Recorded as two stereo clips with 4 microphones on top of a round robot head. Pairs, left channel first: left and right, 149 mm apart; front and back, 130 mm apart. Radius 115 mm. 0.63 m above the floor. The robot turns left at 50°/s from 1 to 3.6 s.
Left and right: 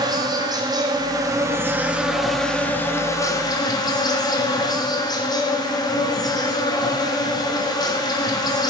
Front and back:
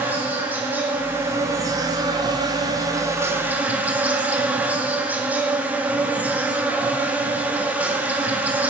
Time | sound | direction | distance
0.0 | an insect | 115° right | 0.9 m